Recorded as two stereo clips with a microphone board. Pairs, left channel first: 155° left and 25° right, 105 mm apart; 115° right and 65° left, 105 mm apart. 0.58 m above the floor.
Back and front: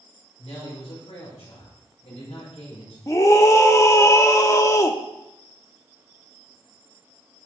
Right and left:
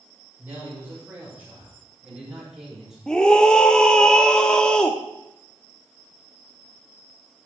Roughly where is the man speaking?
Behind left.